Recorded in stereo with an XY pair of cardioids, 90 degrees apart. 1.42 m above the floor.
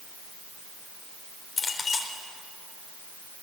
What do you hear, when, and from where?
1.6 s a clink: 40° left, 3.5 m